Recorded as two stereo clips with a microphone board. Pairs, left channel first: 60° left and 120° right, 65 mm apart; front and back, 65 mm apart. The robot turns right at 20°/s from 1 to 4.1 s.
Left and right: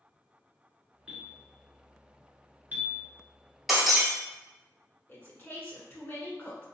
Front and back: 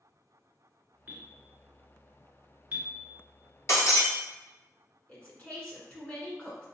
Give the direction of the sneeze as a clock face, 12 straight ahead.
No sneeze in this recording.